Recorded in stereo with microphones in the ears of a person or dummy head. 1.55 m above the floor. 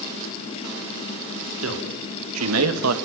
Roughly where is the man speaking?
Right.